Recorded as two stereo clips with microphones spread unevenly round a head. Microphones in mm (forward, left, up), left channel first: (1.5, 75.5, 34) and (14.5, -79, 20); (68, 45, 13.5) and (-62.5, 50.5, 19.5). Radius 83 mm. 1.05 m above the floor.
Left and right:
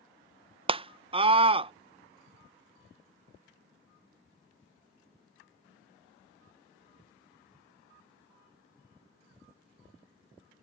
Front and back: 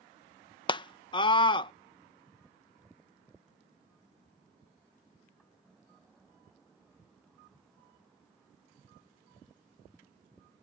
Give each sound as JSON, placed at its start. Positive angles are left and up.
{"t": 0.7, "sound": "a scream", "azimuth_deg": -50}